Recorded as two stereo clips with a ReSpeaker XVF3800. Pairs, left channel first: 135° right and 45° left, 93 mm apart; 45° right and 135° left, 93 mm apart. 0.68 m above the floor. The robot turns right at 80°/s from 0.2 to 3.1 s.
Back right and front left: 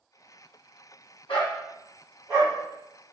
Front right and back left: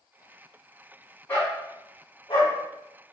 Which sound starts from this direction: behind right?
A dog barking, at 1.3 s.